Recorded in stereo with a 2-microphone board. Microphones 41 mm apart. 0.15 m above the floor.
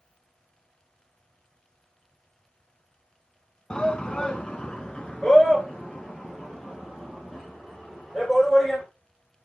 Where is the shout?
25° left (ahead or behind), 1.1 m; by 8.8 s 10° left (ahead or behind), 5 m.